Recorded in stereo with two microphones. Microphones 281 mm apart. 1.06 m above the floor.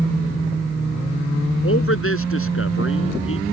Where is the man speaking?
45° left (ahead or behind).